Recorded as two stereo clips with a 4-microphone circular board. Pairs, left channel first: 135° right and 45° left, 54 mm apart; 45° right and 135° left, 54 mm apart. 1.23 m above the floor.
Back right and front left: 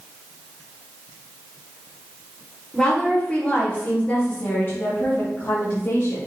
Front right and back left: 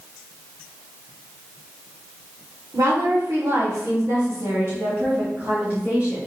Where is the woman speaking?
150° left, 3 m; by 6.3 s 155° right, 2.5 m.